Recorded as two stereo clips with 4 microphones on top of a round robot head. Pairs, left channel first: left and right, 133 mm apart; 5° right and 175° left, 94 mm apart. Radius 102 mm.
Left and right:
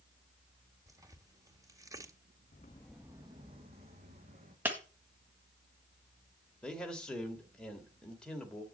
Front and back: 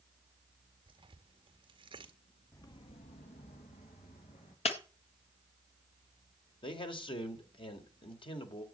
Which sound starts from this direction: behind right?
Tearing paper, at 0.9 s.